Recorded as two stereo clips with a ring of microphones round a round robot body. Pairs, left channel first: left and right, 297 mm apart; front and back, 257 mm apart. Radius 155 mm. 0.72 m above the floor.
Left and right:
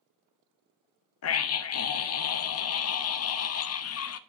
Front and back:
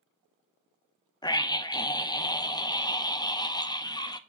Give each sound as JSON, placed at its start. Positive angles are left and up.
{"t": 1.2, "sound": "a scream", "azimuth_deg": 70, "distance_m": 0.6}